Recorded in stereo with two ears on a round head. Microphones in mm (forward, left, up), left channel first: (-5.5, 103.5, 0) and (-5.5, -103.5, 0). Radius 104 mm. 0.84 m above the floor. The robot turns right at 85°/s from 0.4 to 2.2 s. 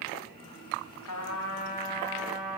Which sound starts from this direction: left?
A trumpet, at 1.1 s.